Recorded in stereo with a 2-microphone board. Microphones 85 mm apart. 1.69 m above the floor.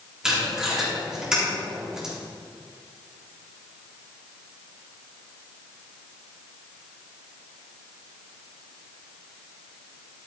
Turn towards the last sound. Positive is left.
turn(degrees=-10)  # may be behind; listen again after turning